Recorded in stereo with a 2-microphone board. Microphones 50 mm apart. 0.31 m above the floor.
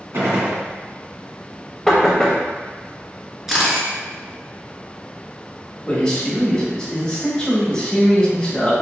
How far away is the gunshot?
About 1.8 m.